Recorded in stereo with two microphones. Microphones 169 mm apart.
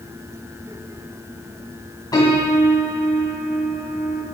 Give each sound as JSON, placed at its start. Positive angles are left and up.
{"t": 2.1, "sound": "a piano", "side_deg": 25, "distance_m": 2.5}